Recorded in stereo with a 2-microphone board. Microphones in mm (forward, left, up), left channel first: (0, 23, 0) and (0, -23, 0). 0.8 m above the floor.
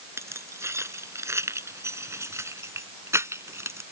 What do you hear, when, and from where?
0.2 s keys jangling: 85° right; by 3.8 s 80° right